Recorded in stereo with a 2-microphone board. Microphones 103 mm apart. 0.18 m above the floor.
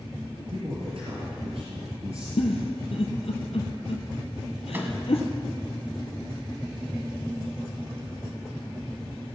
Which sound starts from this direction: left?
A giggle, at 2.4 s.